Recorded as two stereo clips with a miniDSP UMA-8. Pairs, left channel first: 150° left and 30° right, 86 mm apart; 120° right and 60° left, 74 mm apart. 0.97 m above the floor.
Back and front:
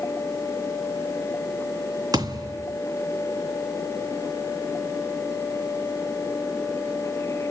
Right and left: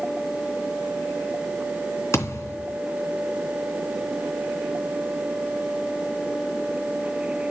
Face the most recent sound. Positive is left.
turn(degrees=-75)